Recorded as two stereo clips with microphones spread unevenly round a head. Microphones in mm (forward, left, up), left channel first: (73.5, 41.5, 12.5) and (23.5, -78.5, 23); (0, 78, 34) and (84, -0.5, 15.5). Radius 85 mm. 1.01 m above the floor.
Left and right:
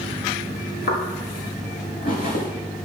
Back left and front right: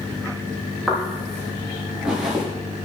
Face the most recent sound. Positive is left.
turn(degrees=40)